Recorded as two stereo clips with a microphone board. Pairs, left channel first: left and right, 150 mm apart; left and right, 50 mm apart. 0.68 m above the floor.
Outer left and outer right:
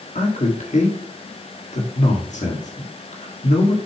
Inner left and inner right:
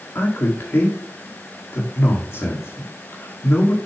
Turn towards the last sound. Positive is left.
turn(degrees=55)  # may be behind; listen again after turning